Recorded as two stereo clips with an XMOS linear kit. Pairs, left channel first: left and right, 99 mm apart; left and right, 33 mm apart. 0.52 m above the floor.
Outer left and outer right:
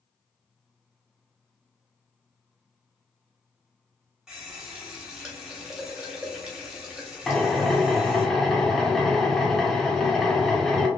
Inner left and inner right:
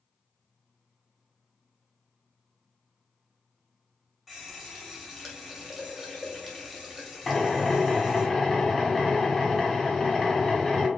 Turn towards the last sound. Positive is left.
turn(degrees=5)  # may be behind; listen again after turning